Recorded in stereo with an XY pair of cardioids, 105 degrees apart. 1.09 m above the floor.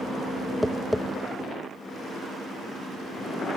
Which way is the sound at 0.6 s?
5° left.